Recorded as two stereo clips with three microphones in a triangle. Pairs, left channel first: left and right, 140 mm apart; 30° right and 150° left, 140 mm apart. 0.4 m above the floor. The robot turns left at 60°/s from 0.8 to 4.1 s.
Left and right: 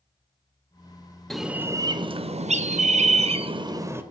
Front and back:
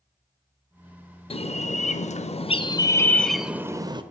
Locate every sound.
1.3 s a bird: 5° left, 0.6 m; by 4.0 s 160° right, 0.6 m